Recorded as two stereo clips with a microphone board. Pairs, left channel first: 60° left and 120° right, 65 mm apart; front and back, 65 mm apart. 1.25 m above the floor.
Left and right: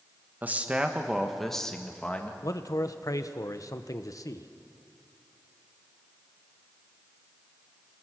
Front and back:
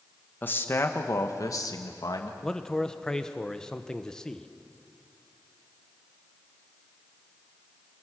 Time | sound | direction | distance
0.4 | a man speaking | 60° right | 1.5 m
2.4 | a man speaking | 80° left | 1.0 m